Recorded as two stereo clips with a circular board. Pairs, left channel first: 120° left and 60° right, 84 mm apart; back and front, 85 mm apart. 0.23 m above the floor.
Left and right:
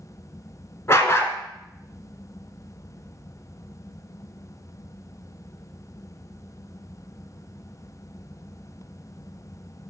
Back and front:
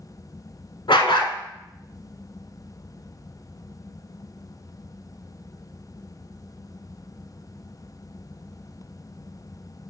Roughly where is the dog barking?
Behind.